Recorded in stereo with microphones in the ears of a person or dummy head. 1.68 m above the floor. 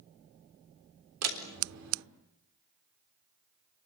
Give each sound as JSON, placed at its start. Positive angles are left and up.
{"t": 1.2, "sound": "a door slam", "side_deg": -80, "distance_m": 3.5}